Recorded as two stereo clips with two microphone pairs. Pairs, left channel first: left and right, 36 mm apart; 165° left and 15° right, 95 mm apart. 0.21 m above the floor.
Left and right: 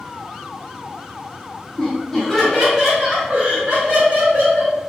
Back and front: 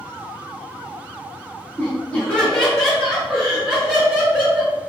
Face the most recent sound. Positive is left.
turn(degrees=-95)